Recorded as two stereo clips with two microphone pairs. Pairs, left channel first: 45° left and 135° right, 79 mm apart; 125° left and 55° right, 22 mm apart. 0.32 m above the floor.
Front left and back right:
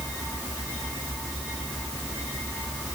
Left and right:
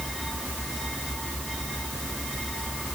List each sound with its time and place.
Only background noise.